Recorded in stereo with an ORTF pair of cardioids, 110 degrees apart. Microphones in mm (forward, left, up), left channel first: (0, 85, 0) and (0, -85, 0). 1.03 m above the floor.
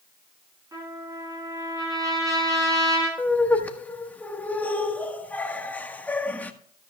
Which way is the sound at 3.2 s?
10° left.